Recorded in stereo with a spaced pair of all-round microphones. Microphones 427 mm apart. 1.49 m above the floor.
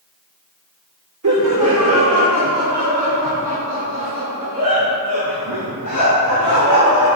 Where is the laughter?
50° right (ahead or behind), 1.1 m; by 7.2 s 60° right (ahead or behind), 7.5 m.